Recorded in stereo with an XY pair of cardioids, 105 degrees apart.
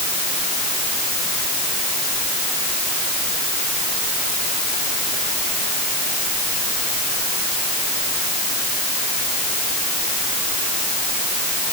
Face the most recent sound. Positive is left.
No sound to turn to.